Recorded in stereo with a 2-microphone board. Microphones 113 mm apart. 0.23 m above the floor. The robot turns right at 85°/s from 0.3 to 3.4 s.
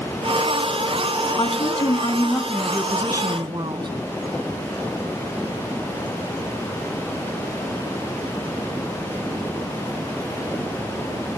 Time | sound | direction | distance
1.4 | a woman speaking | 65° left | 1.8 m